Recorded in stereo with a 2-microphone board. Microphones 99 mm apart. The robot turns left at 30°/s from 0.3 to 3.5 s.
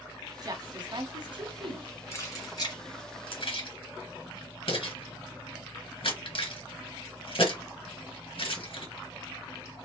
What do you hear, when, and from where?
0.4 s a woman speaking: 40° right (ahead or behind), 1.7 m; by 2.0 s 55° right (ahead or behind), 1.7 m
2.1 s keys jangling: 30° left (ahead or behind), 2.5 m; by 8.9 s 65° left (ahead or behind), 2.5 m